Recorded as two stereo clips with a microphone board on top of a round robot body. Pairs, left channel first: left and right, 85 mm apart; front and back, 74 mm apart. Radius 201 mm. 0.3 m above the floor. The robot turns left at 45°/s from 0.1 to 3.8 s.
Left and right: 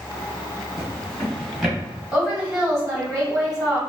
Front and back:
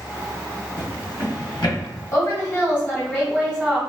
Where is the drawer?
40° left, 1.5 m; by 1.8 s 5° right, 1.5 m.